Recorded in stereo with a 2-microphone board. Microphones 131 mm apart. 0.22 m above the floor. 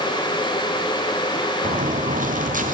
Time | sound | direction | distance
1.6 | footsteps | 75° right (ahead or behind) | 2.5 m